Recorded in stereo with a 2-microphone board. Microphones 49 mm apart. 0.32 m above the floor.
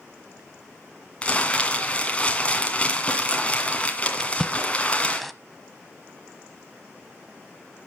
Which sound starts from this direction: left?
Crumpling, at 1.2 s.